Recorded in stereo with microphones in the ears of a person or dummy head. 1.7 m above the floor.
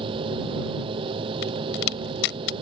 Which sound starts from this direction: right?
A machine running, at 0.0 s.